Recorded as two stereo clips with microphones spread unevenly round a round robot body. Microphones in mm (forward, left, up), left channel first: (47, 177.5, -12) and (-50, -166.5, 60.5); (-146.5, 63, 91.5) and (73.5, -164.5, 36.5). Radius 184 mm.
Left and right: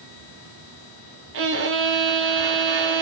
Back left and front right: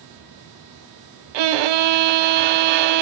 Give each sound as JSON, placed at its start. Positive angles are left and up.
{"t": 1.3, "sound": "a violin", "azimuth_deg": -50, "distance_m": 0.5}